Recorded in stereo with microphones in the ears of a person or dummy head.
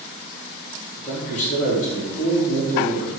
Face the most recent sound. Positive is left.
turn(degrees=45)  # may be behind; listen again after turning